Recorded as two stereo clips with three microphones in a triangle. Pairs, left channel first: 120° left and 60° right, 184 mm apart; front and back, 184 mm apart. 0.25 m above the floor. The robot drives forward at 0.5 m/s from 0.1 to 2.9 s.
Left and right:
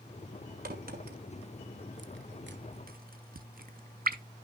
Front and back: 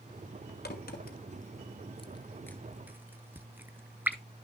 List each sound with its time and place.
0.7 s a crack: 25° right, 1.1 m; by 4.2 s 100° right, 0.5 m